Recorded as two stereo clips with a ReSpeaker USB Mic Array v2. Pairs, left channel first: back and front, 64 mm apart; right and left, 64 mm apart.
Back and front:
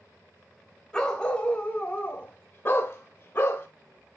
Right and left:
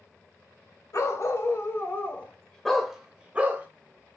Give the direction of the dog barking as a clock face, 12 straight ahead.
3 o'clock.